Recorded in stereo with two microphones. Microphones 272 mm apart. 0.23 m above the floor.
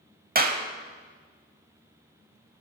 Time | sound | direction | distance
0.3 | a clap | 35° right (ahead or behind) | 0.8 m